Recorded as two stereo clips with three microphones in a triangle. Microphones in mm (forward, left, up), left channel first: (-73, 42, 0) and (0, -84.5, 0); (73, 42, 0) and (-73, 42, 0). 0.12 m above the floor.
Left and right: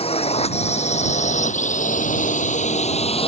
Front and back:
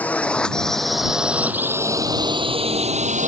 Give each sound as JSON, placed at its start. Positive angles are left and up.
{"t": 0.0, "sound": "a drone", "azimuth_deg": 80}